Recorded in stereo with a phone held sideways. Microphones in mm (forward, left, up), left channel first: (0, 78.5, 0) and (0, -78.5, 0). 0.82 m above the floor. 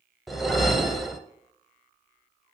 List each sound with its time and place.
0.3 s a whoosh: centre (ahead or behind), 0.6 m